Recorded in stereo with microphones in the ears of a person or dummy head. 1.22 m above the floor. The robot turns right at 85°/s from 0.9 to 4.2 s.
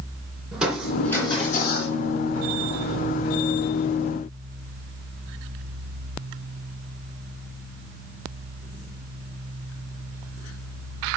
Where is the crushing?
5° right, 3 m; by 1.9 s 85° left, 3 m.